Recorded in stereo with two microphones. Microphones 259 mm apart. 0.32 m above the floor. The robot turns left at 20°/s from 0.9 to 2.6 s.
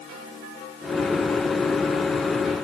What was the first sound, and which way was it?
Only background noise.